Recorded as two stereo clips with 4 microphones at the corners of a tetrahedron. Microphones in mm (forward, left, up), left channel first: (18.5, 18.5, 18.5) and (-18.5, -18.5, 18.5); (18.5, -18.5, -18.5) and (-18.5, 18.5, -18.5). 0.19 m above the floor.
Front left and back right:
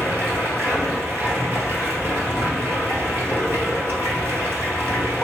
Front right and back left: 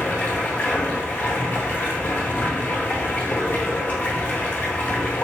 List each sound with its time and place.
0.0 s running water: 100° right, 1.3 m